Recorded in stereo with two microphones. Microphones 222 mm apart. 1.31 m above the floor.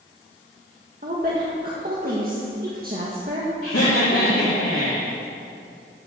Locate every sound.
1.0 s a woman speaking: 40° right (ahead or behind), 1.8 m
3.6 s laughter: 75° left (ahead or behind), 3 m